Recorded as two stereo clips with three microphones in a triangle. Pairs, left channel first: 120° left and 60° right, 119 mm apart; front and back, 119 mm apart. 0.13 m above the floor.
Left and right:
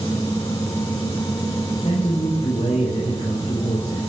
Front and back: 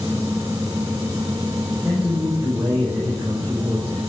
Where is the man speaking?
105° left, 5 m.